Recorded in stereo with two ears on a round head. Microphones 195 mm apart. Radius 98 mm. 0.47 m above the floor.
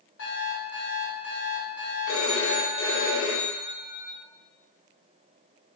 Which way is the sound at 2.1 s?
70° left (ahead or behind).